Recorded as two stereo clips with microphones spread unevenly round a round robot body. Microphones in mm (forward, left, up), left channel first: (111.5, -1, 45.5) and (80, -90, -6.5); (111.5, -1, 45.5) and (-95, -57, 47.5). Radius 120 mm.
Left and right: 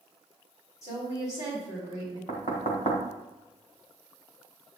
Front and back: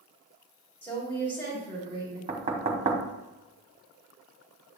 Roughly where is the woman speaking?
Left.